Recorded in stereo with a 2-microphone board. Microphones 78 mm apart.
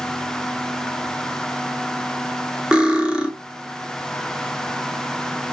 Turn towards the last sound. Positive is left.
turn(degrees=-10)  # may be behind; listen again after turning